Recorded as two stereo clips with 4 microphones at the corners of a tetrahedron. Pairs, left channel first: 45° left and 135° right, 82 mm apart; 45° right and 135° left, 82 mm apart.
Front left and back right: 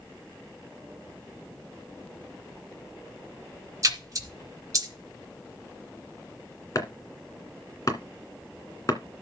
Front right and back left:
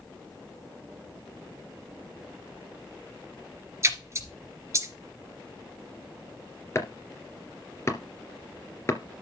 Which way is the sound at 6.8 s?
5° left.